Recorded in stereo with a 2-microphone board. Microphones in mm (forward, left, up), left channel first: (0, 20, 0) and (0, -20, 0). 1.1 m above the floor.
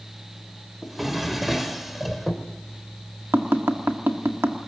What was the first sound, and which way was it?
A drawer, 5° right (ahead or behind).